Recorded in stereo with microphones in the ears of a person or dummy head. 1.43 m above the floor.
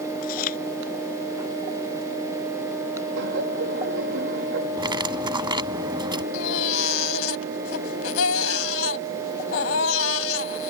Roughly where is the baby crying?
Left.